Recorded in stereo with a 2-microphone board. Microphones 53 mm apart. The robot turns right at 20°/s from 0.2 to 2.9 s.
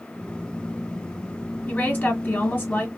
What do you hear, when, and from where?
1.7 s a woman speaking: 35° left (ahead or behind), 1.4 m